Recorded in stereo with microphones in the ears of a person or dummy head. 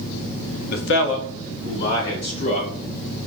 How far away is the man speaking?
About 0.6 m.